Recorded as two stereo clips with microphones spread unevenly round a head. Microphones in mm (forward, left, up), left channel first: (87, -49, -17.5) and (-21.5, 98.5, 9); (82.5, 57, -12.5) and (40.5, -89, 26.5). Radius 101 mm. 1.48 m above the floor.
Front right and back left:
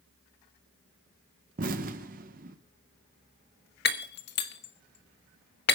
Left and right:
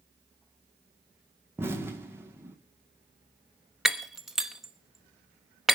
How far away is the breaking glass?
About 1.2 m.